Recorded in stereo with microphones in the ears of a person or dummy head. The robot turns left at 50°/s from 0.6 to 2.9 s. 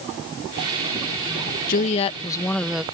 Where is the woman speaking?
50° left; by 2.8 s 10° right.